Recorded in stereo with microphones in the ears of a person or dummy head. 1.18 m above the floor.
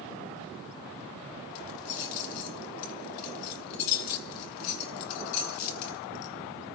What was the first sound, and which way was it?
Keys jangling, 70° left (ahead or behind).